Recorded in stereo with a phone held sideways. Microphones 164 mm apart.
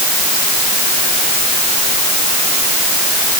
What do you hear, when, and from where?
Only background noise.